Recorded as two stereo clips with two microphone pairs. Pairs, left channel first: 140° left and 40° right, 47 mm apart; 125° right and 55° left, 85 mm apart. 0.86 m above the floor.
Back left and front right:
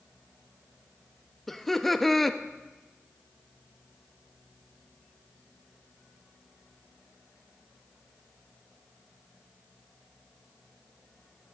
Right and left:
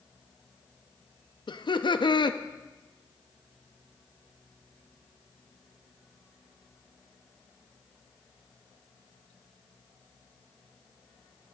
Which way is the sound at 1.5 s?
140° right.